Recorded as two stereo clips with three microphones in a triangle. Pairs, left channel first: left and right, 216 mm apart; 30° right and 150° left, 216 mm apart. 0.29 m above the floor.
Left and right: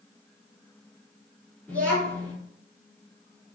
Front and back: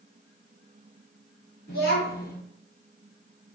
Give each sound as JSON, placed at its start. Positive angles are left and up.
{"t": 1.7, "sound": "a child speaking", "azimuth_deg": 5, "distance_m": 2.0}